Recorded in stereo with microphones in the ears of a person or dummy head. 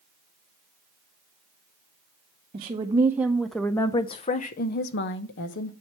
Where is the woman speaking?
30° right (ahead or behind), 1.0 m; by 5.7 s 65° left (ahead or behind), 1.3 m.